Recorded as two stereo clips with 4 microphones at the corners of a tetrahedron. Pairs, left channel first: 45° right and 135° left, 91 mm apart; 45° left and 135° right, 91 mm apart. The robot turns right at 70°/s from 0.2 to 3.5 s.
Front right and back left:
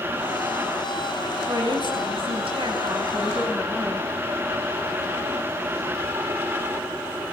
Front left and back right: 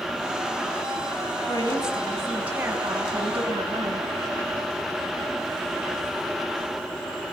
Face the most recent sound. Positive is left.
turn(degrees=-135)